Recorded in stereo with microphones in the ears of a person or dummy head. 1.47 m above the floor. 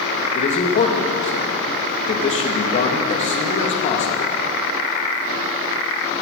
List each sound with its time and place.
0.3 s a man speaking: 40° left (ahead or behind), 2 m